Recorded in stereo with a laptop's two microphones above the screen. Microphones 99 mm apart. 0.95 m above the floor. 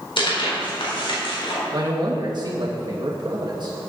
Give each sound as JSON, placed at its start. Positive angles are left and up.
{"t": 0.2, "sound": "tearing paper", "side_deg": 65, "distance_m": 4.0}
{"t": 1.7, "sound": "a man speaking", "side_deg": -50, "distance_m": 1.5}